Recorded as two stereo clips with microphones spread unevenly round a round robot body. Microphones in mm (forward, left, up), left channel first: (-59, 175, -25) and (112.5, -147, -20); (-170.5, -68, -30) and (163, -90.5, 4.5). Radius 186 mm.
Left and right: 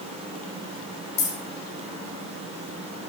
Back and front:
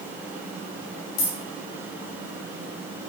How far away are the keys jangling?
About 3 m.